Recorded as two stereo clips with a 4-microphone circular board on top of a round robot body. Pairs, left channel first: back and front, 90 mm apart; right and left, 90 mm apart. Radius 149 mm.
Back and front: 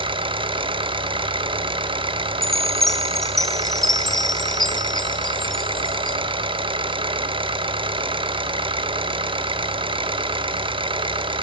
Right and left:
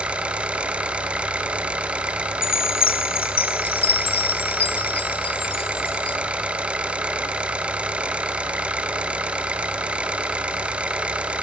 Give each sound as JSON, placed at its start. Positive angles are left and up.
{"t": 0.0, "sound": "an engine running", "azimuth_deg": 15, "distance_m": 3.0}
{"t": 2.4, "sound": "a chime", "azimuth_deg": -95, "distance_m": 1.0}